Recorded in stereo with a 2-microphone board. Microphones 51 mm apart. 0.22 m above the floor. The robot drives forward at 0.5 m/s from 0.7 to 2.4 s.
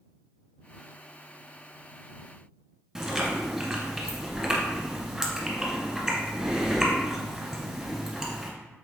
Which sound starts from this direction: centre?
Chewing, at 3.0 s.